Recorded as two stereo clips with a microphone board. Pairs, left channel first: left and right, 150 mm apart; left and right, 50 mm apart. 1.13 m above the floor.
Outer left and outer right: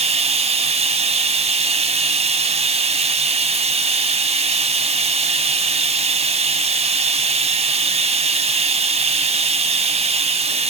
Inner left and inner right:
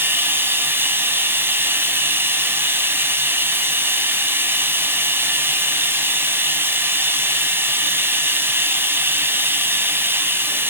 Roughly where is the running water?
Right.